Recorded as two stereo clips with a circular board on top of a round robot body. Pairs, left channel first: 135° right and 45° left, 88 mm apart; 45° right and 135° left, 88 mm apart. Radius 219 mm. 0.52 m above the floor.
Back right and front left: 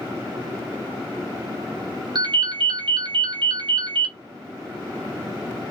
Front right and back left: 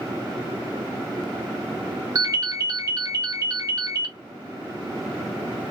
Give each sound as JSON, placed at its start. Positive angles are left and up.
{"t": 2.1, "sound": "a ringtone", "azimuth_deg": 85, "distance_m": 0.8}